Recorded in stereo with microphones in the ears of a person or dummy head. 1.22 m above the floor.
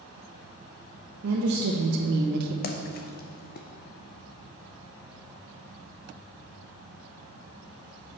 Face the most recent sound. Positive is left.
turn(degrees=45)  # may be behind; listen again after turning